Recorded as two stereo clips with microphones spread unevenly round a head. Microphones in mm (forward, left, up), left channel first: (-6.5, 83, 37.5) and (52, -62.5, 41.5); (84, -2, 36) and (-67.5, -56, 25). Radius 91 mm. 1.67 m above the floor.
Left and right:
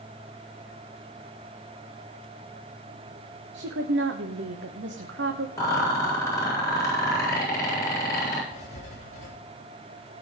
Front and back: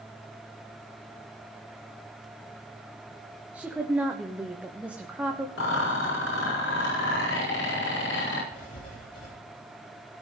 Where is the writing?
65° left, 6.5 m.